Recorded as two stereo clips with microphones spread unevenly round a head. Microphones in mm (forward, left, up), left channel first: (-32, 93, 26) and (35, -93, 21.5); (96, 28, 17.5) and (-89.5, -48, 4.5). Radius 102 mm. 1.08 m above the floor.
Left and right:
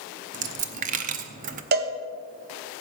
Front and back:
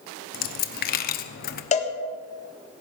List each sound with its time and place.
0.3 s a dropped coin: 20° right, 0.9 m
1.7 s a cowbell: 35° right, 1.4 m